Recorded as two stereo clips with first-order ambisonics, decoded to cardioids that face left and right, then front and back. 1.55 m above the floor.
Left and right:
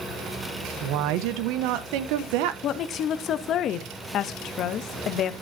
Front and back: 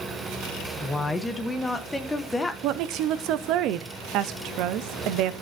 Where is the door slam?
I don't hear a door slam.